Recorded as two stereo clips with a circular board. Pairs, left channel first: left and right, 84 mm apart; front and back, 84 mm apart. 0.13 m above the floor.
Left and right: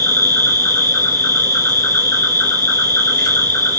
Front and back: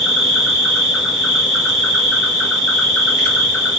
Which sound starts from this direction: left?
An insect, at 0.0 s.